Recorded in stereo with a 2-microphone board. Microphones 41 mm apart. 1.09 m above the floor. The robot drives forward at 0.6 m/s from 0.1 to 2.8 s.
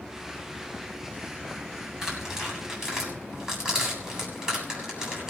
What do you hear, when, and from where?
2.0 s tearing paper: 15° right (ahead or behind), 7 m